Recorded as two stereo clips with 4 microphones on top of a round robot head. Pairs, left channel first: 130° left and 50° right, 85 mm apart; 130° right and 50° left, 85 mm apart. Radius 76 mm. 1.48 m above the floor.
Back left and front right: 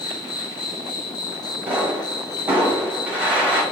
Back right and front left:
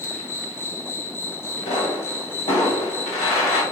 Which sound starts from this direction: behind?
An insect, at 0.0 s.